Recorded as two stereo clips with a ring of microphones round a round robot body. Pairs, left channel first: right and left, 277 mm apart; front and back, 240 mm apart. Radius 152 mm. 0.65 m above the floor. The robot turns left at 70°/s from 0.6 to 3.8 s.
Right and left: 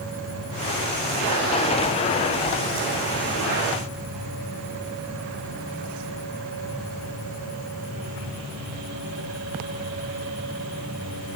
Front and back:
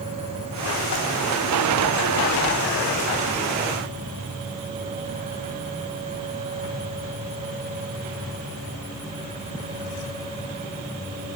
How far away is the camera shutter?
I don't hear a camera shutter.